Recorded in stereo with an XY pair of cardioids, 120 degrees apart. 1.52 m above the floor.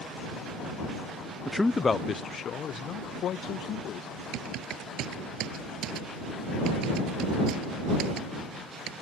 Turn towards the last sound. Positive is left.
turn(degrees=-70)